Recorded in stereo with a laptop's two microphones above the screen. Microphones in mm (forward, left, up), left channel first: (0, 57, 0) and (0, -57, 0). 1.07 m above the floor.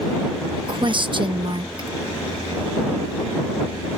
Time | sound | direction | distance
0.7 | a woman speaking | 45° right (ahead or behind) | ?